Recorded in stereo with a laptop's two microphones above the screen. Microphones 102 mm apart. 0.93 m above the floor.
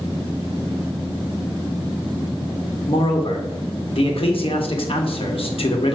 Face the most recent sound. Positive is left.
turn(degrees=60)  # may be behind; listen again after turning